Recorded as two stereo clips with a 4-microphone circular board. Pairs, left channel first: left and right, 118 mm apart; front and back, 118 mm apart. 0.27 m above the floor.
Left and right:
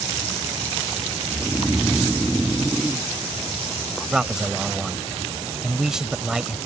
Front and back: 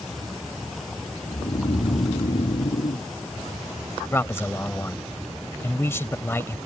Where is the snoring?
Straight ahead.